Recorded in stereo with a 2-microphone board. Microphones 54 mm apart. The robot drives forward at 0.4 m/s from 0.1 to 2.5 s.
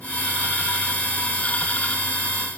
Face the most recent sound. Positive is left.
No sound to turn to.